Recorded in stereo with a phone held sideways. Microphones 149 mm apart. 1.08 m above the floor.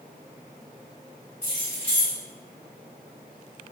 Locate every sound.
1.4 s keys jangling: 20° left (ahead or behind), 1.9 m